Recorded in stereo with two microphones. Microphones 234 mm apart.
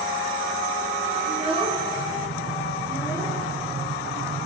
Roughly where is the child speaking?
Right.